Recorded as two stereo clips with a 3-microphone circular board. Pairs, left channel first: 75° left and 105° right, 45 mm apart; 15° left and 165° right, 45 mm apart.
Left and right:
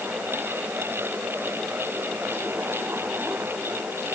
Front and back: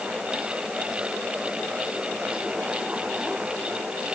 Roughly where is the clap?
I don't hear a clap.